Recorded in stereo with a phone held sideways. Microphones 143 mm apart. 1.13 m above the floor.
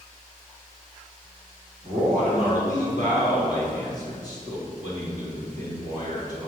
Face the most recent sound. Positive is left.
turn(degrees=-70)  # may be behind; listen again after turning